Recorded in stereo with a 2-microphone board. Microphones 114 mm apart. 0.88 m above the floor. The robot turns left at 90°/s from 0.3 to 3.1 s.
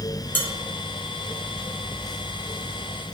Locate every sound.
0.3 s dishes clattering: 20° left (ahead or behind), 0.6 m; by 0.5 s 10° left (ahead or behind), 0.6 m